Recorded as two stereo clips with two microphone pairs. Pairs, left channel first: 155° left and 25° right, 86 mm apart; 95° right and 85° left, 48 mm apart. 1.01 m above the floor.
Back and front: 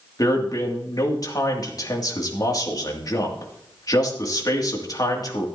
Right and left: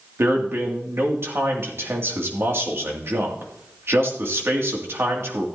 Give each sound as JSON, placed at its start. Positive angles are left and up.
{"t": 0.2, "sound": "a man speaking", "azimuth_deg": 115, "distance_m": 2.5}